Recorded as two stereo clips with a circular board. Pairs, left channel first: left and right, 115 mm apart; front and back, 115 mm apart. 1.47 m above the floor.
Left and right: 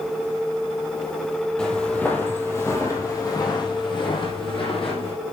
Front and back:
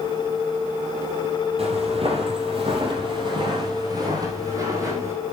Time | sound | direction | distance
1.6 | footsteps | 170° left | 3 m